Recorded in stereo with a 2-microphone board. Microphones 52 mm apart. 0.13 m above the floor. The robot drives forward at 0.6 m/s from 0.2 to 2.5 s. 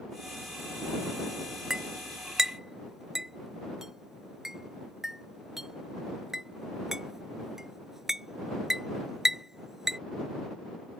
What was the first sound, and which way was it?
A clink, 10° right (ahead or behind).